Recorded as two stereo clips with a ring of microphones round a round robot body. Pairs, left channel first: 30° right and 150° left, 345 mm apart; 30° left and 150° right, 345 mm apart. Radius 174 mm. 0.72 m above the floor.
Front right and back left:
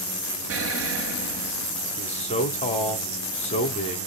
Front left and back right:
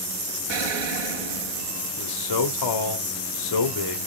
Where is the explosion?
160° right, 1.2 m.